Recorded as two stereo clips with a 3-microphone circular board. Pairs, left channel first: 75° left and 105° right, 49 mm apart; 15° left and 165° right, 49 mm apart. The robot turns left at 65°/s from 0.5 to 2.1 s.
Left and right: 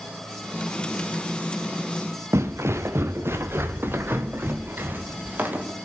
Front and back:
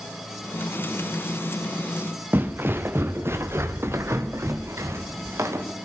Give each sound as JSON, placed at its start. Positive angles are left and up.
{"t": 2.3, "sound": "footsteps", "azimuth_deg": -120, "distance_m": 1.9}